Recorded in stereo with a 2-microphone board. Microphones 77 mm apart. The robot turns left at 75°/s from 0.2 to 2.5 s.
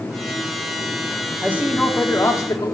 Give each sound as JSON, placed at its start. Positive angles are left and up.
{"t": 1.4, "sound": "a man speaking", "azimuth_deg": -150, "distance_m": 1.9}